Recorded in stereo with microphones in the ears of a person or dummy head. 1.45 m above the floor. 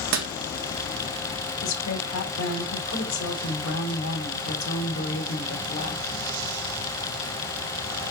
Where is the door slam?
65° right (ahead or behind), 1.5 m.